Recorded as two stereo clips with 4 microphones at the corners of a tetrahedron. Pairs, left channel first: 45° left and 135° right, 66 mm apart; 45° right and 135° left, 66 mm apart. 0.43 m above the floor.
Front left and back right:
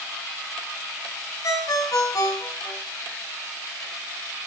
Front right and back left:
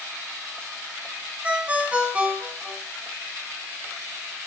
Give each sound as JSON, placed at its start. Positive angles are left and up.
{"t": 1.4, "sound": "a ringtone", "azimuth_deg": 70, "distance_m": 2.5}